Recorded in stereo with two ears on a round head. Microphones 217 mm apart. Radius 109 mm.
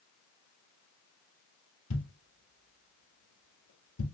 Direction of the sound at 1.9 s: 80° left.